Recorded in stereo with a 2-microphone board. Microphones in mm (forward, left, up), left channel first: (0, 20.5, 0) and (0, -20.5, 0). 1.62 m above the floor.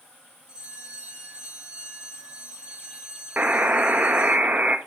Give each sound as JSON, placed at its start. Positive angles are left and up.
{"t": 0.5, "sound": "a bell", "side_deg": -20, "distance_m": 5.5}
{"t": 3.4, "sound": "a buzzer", "side_deg": -40, "distance_m": 1.0}